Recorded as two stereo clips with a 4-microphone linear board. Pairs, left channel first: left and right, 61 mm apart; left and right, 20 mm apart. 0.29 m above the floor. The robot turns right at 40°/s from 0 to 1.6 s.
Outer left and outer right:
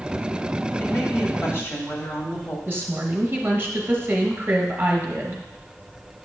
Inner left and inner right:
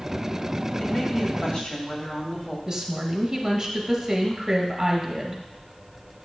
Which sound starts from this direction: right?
A woman speaking, at 2.7 s.